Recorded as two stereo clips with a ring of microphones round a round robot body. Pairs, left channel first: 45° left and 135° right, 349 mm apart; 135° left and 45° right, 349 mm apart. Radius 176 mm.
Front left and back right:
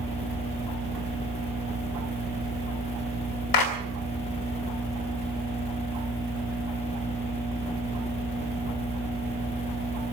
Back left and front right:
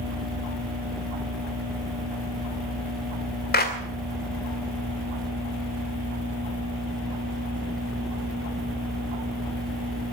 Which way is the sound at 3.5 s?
70° left.